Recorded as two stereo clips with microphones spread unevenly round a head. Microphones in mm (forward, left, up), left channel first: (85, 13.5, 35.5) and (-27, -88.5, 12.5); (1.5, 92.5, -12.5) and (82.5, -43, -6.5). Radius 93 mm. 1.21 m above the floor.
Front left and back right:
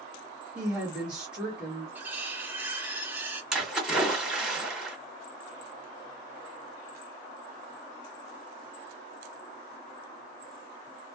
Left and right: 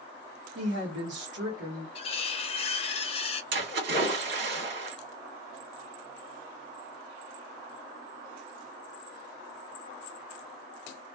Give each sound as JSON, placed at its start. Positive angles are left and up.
{"t": 0.6, "sound": "a woman speaking", "azimuth_deg": -55, "distance_m": 1.3}
{"t": 1.9, "sound": "cutlery clinking", "azimuth_deg": 135, "distance_m": 0.6}
{"t": 3.5, "sound": "a splash", "azimuth_deg": -50, "distance_m": 1.9}